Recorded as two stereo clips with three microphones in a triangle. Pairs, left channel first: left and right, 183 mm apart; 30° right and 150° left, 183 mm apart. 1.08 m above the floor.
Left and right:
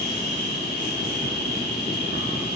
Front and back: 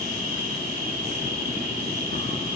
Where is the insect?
115° left, 3 m.